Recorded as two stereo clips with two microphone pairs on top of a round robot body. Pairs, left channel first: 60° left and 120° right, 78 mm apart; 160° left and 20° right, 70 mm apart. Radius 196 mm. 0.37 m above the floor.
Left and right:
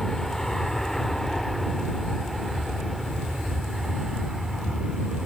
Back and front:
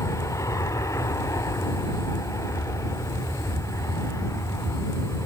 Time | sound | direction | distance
0.0 | an aircraft | 150° left | ?